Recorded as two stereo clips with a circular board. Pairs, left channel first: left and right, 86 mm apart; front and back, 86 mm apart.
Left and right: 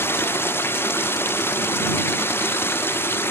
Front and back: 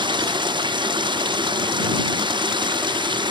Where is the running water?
155° left.